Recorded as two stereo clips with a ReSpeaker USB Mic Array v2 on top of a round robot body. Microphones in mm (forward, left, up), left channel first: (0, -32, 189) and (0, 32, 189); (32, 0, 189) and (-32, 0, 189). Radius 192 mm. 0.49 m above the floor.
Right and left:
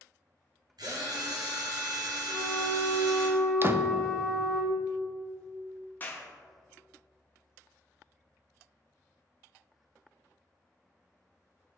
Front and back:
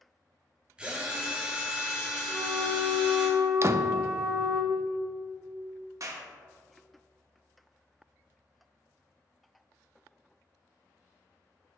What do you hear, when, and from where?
0.8 s a drill: 105° left, 1.6 m
2.3 s a flute: 135° right, 0.5 m
3.6 s a door slam: 140° left, 0.6 m
6.0 s a clap: 150° right, 1.2 m